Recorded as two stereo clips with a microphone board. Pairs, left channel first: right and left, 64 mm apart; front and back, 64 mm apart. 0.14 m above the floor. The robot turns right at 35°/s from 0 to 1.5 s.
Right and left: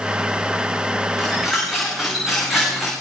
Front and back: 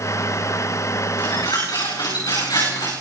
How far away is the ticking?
I don't hear ticking.